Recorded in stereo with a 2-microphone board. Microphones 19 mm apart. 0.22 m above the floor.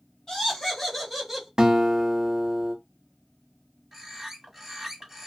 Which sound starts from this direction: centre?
A bird, at 3.9 s.